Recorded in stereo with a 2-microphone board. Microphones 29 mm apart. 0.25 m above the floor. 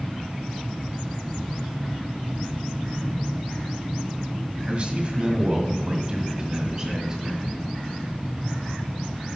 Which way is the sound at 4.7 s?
40° right (ahead or behind).